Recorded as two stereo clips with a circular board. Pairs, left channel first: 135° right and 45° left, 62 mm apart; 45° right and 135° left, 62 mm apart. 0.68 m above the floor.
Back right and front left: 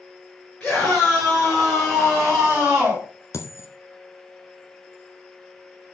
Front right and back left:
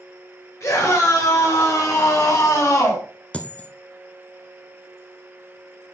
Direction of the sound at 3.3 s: 110° right.